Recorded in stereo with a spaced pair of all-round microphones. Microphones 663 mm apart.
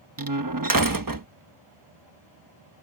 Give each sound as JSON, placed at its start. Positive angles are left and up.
{"t": 0.2, "sound": "a door slam", "side_deg": -30}